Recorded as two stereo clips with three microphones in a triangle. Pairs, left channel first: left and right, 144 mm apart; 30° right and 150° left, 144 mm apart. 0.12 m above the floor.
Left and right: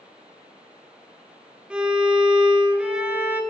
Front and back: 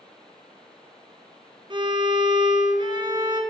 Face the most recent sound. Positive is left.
turn(degrees=-170)